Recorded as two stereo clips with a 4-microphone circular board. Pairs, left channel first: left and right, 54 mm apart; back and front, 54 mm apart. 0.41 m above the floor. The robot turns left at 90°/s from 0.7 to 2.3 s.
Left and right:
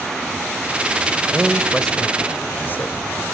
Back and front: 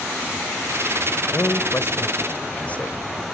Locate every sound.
1.3 s a man speaking: 145° right, 2.0 m; by 3.0 s 125° left, 2.0 m